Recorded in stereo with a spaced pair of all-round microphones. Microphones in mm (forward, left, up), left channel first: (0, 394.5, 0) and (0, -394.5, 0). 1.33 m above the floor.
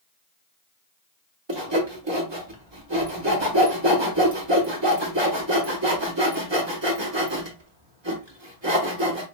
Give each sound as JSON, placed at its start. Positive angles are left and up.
{"t": 1.5, "sound": "sawing", "side_deg": -35, "distance_m": 1.1}